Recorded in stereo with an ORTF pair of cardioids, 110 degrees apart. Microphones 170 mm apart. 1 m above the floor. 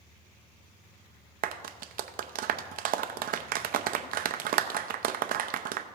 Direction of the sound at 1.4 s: 55° right.